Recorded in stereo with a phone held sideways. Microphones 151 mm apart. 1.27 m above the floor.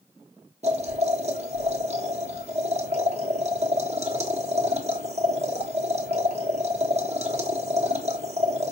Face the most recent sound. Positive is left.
turn(degrees=-45)  # may be behind; listen again after turning